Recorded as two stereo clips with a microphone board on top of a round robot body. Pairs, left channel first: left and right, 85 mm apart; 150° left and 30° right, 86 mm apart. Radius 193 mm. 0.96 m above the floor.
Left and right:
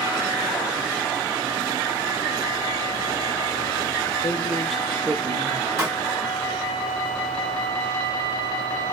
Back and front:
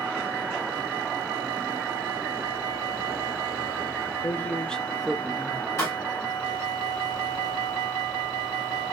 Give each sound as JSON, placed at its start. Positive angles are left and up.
{"t": 4.2, "sound": "a man speaking", "azimuth_deg": 95, "distance_m": 0.9}
{"t": 5.8, "sound": "a pop", "azimuth_deg": -150, "distance_m": 1.5}